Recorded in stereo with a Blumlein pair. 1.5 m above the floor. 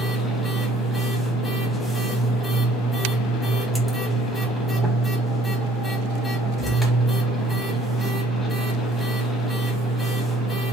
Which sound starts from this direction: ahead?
A machine running, at 0.0 s.